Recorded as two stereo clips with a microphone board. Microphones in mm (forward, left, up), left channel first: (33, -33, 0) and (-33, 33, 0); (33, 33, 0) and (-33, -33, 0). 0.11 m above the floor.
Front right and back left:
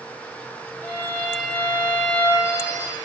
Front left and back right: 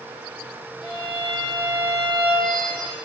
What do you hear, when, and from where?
0.8 s a violin: 20° left, 3 m